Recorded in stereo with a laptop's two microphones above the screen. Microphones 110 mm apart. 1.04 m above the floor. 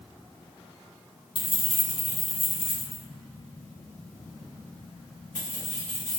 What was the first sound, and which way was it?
Keys jangling, 50° left (ahead or behind).